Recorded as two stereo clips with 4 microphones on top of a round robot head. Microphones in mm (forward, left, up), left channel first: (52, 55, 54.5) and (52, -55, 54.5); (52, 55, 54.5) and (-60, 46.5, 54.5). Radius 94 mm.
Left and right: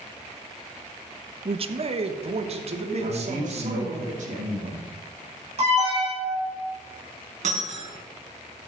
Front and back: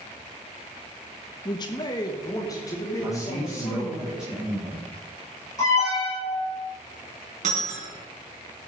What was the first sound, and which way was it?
A man speaking, 50° right.